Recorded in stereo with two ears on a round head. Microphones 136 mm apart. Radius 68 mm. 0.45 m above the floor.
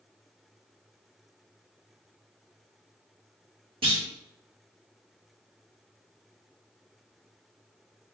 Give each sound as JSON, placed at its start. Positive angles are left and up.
{"t": 3.8, "sound": "a clunk", "side_deg": -35, "distance_m": 0.9}